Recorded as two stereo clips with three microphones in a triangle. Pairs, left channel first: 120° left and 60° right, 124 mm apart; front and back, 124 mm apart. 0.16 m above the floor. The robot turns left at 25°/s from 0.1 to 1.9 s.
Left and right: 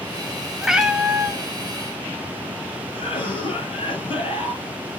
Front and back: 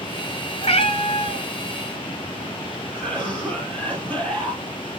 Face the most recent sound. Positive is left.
turn(degrees=80)